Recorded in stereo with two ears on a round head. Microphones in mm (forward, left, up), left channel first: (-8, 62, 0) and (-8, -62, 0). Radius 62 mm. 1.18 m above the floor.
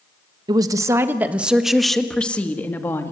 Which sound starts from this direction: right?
A woman speaking, at 0.5 s.